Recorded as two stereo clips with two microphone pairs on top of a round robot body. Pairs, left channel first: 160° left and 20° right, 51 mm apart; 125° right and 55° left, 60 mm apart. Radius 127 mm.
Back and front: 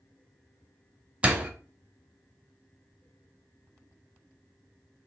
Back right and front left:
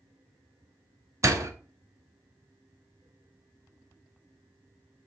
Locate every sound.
1.2 s a door slam: 50° left, 1.5 m